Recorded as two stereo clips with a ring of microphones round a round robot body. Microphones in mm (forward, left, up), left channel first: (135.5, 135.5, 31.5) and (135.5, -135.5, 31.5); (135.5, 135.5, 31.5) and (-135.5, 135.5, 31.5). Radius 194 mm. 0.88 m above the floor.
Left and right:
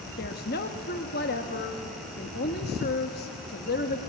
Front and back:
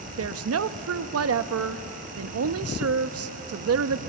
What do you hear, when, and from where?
0.2 s a woman speaking: 150° left, 0.9 m